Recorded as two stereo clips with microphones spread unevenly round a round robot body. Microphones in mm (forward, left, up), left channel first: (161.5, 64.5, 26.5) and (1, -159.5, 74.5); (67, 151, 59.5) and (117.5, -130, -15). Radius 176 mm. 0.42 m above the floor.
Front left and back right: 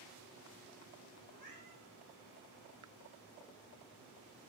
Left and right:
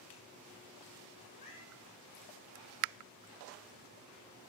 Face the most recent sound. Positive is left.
turn(degrees=170)